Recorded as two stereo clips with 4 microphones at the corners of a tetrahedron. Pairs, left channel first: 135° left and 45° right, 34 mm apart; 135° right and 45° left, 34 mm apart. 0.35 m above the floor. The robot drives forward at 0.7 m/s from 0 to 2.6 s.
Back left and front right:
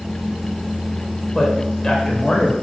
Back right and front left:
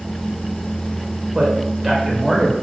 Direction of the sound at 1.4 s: 90° left.